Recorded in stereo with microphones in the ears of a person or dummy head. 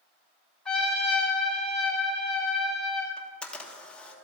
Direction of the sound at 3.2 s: 5° left (ahead or behind).